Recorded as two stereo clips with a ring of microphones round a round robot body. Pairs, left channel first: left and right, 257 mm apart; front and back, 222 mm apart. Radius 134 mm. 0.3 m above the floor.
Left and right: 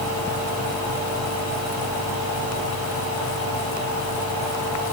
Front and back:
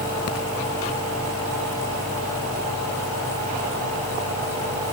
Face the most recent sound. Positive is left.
No sound to turn to.